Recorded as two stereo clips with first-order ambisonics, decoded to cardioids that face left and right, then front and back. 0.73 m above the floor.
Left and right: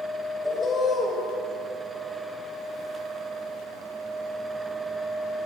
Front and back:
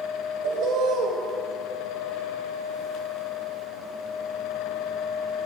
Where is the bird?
160° left, 0.6 m.